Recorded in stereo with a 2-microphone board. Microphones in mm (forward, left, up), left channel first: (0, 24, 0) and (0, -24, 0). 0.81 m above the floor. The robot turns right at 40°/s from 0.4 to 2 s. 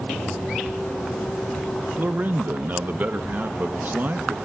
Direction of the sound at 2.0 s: 45° right (ahead or behind).